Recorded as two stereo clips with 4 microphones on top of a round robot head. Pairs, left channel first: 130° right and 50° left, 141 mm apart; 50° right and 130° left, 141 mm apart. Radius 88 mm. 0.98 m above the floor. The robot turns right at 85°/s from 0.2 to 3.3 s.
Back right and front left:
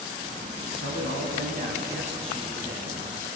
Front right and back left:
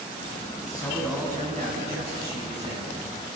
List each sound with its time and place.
0.6 s a man speaking: straight ahead, 9 m; by 2.9 s 160° right, 9 m